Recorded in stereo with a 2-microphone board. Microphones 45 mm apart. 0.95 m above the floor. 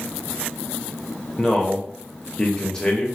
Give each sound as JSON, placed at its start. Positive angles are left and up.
{"t": 1.4, "sound": "a man speaking", "side_deg": 10, "distance_m": 0.8}